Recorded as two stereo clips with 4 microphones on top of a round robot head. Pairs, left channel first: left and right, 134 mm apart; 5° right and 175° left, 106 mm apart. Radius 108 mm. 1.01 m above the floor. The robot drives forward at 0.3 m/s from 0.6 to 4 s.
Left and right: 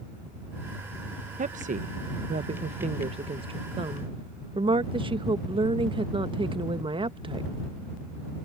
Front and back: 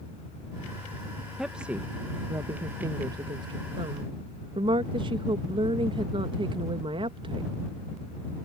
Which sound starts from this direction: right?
A woman speaking, at 1.4 s.